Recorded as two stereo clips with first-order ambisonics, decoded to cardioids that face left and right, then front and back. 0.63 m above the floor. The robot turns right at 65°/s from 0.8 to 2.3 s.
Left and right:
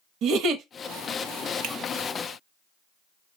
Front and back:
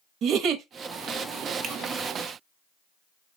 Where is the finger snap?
125° right, 1.2 m; by 1.8 s 120° right, 1.2 m.